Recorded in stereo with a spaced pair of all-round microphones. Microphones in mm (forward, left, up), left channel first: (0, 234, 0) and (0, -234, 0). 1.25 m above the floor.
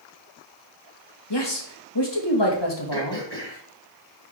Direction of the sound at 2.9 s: 55° right (ahead or behind).